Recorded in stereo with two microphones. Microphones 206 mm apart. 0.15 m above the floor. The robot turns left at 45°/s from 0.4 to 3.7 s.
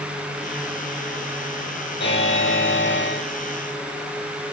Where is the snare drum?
No snare drum in this recording.